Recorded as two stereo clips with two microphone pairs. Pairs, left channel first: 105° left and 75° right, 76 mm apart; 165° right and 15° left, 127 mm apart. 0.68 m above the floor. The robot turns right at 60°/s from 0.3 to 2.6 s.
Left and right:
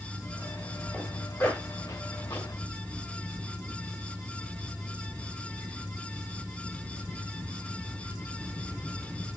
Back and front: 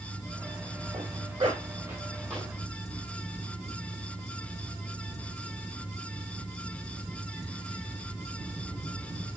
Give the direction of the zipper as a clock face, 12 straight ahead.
11 o'clock.